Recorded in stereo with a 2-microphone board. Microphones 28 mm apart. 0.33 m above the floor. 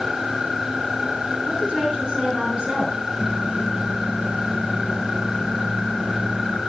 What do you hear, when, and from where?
1.5 s a woman speaking: 30° right (ahead or behind), 5 m; by 3.0 s 35° right (ahead or behind), 5.5 m
3.2 s a microwave: 65° right (ahead or behind), 3.5 m